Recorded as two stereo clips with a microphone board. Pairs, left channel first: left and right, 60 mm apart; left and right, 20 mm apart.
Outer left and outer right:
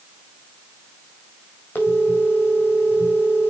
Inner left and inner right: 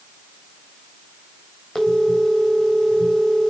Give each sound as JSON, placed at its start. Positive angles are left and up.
{"t": 1.8, "sound": "a phone ringing", "side_deg": 30, "distance_m": 3.5}